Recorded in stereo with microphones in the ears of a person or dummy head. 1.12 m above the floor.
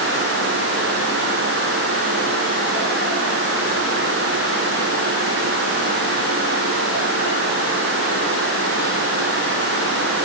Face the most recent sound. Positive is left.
No sound to turn to.